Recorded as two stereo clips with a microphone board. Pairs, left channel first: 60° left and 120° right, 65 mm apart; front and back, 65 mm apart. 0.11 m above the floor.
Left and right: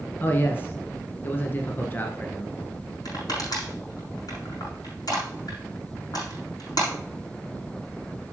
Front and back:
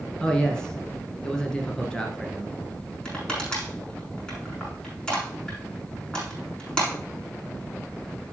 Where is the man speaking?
70° left, 1.2 m.